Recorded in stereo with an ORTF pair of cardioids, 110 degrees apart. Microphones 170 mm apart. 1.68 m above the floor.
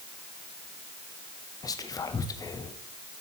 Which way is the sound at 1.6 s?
20° left.